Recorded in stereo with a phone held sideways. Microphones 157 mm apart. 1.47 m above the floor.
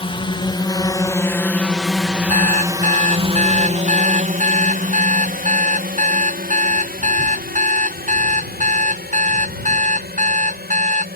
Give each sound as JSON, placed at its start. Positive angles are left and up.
{"t": 0.0, "sound": "a drone", "side_deg": 35}
{"t": 2.3, "sound": "an alarm clock", "side_deg": -55}